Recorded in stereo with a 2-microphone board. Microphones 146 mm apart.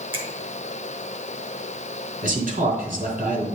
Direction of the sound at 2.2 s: 70° right (ahead or behind).